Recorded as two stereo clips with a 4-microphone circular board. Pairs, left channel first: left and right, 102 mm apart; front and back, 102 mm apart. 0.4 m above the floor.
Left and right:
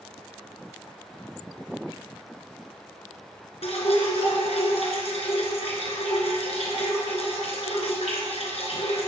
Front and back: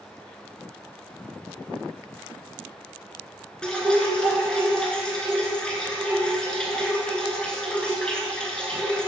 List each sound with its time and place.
3.6 s dripping: 80° left, 1.9 m